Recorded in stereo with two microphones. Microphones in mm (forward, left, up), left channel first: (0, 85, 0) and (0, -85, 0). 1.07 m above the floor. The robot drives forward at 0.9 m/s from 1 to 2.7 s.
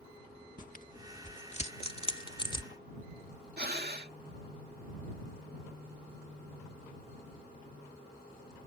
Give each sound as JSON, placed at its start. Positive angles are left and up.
{"t": 0.6, "sound": "tearing paper", "side_deg": 50}
{"t": 3.6, "sound": "breathing", "side_deg": -65}